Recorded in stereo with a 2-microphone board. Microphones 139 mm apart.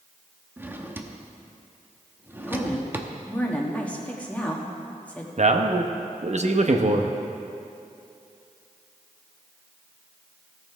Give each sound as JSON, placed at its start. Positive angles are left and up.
{"t": 0.6, "sound": "a drawer", "side_deg": -15, "distance_m": 0.7}
{"t": 2.5, "sound": "a woman speaking", "side_deg": 10, "distance_m": 1.3}
{"t": 5.4, "sound": "a man speaking", "side_deg": -55, "distance_m": 0.7}